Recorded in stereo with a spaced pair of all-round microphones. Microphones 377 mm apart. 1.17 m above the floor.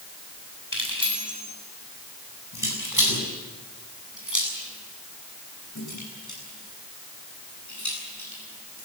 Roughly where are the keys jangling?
Left.